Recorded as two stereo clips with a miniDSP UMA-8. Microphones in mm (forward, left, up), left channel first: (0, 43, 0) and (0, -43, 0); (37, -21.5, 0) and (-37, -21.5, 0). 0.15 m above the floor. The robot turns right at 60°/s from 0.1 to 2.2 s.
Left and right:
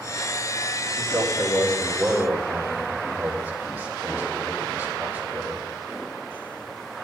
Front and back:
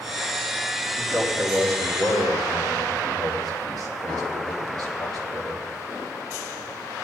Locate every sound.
1.0 s a man speaking: 120° left, 5 m; by 5.6 s 165° right, 5 m